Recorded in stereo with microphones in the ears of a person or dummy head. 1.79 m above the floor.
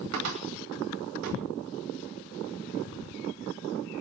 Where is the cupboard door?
75° right (ahead or behind), 2.5 m.